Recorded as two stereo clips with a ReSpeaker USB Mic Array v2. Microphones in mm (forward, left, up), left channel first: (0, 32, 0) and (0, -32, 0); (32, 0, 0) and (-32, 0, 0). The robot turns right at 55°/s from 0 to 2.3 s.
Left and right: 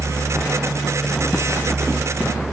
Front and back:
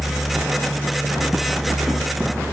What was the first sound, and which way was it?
Only background noise.